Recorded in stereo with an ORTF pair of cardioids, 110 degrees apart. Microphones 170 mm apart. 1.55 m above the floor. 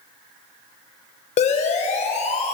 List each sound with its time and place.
1.4 s a siren: 40° left, 6 m